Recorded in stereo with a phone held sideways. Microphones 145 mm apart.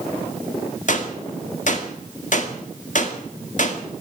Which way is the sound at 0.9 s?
60° left (ahead or behind).